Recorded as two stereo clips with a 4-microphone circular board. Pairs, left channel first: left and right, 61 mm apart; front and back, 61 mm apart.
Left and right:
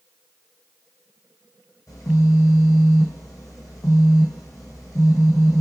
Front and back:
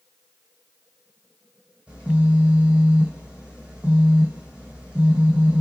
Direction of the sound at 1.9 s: 110° left.